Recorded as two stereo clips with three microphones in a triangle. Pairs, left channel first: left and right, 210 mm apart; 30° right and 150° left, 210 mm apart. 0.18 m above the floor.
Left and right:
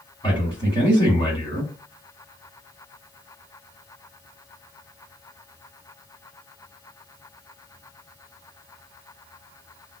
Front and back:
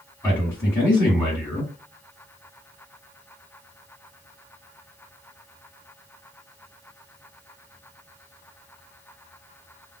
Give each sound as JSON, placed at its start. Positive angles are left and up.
{"t": 0.2, "sound": "a man speaking", "azimuth_deg": 45, "distance_m": 1.9}